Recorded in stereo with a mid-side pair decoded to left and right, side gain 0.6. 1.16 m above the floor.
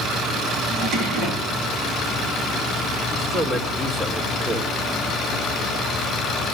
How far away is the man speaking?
About 4 m.